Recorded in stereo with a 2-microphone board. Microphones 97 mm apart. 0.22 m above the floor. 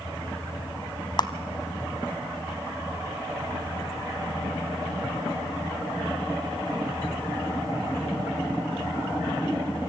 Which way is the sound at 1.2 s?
45° left (ahead or behind).